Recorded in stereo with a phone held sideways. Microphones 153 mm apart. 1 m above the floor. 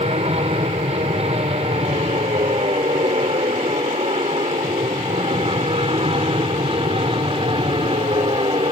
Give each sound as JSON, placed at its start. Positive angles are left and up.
{"t": 0.0, "sound": "an aircraft", "side_deg": -40}